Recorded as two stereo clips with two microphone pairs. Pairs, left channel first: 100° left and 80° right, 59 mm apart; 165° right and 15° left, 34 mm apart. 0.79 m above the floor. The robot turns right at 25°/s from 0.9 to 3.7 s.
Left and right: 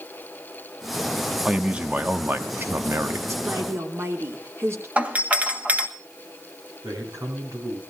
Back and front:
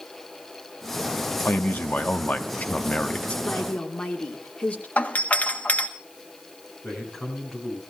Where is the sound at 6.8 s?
85° right, 7 m.